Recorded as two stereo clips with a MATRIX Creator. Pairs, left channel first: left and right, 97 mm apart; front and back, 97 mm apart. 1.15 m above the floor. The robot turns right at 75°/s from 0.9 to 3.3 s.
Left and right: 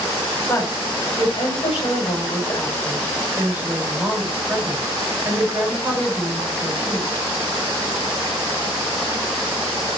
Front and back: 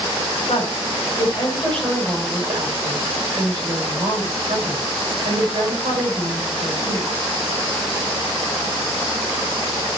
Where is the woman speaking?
15° left, 4 m; by 7.1 s 165° right, 4 m.